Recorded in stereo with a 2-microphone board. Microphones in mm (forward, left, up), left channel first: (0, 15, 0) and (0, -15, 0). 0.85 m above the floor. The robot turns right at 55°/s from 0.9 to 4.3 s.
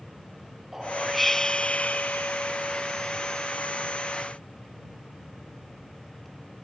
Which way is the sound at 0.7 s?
15° right.